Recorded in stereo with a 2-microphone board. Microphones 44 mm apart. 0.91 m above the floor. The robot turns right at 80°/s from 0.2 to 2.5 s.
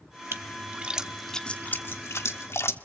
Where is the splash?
70° right (ahead or behind), 1.0 m; by 2.8 s 75° left (ahead or behind), 1.0 m.